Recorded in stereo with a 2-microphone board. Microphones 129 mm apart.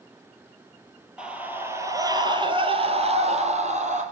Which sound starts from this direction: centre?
A scream, at 1.2 s.